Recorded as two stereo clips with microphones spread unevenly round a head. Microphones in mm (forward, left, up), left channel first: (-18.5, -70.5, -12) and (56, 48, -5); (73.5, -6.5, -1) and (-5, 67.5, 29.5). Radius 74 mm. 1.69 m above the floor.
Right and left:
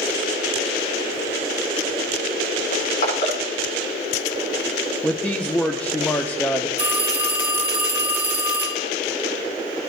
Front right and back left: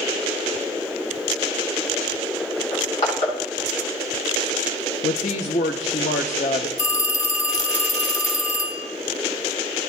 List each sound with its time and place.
2.7 s crushing: 95° right, 7.5 m
5.0 s a woman speaking: 45° right, 0.5 m
6.8 s a phone ringing: 15° right, 2 m